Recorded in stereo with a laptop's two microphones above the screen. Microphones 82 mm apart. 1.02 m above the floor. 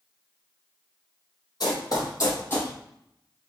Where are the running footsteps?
55° left (ahead or behind), 1.6 m; by 2.7 s 25° left (ahead or behind), 1.6 m.